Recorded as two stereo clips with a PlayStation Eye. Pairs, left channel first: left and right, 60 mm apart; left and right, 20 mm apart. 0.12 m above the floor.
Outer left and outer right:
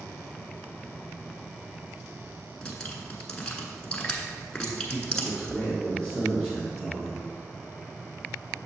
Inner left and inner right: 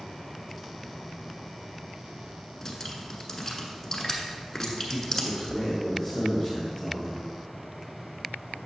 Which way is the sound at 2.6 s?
15° left (ahead or behind).